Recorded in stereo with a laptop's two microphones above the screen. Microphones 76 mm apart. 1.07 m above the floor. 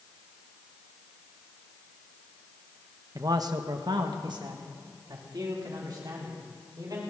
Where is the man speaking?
45° right (ahead or behind), 1.0 m; by 7.0 s 55° right (ahead or behind), 4 m.